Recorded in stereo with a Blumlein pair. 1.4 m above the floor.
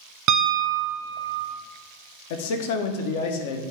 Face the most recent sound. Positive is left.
turn(degrees=50)